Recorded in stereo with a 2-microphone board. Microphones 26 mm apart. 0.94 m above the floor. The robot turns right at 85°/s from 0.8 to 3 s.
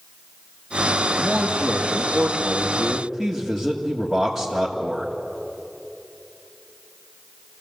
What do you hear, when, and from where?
1.2 s a man speaking: 145° right, 2 m; by 5.1 s 10° left, 2 m